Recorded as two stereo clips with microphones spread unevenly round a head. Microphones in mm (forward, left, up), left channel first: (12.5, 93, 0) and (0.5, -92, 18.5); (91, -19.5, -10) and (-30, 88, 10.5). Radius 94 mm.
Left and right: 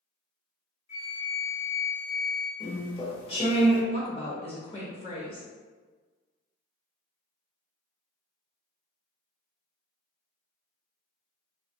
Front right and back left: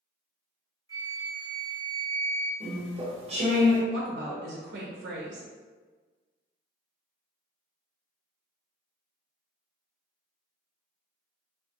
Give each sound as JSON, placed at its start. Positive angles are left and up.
{"t": 0.9, "sound": "a flute", "azimuth_deg": 20, "distance_m": 1.5}
{"t": 2.6, "sound": "chewing", "azimuth_deg": 140, "distance_m": 1.0}
{"t": 3.9, "sound": "a woman speaking", "azimuth_deg": 150, "distance_m": 0.7}